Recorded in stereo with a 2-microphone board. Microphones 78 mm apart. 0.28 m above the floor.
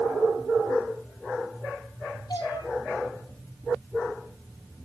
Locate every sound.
2.3 s a cat meowing: 60° left (ahead or behind), 3.5 m